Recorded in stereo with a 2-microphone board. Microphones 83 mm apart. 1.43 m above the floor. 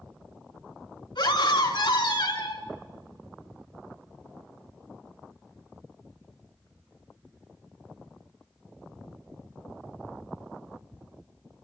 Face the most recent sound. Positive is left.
turn(degrees=85)